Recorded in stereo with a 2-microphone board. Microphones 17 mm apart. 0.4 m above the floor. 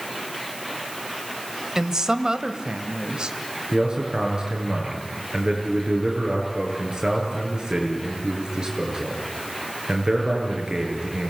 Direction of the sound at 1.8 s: 35° right (ahead or behind).